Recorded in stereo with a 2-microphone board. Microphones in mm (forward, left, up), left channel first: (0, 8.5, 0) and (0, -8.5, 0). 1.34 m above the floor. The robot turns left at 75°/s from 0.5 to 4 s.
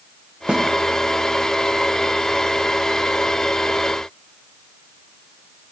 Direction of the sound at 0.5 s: 70° right (ahead or behind).